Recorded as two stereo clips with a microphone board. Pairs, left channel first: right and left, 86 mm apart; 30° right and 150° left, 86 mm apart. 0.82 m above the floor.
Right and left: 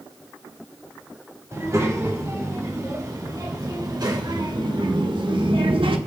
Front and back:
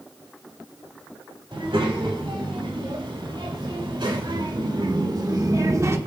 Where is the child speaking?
140° left, 3 m; by 6.0 s 95° left, 1.0 m.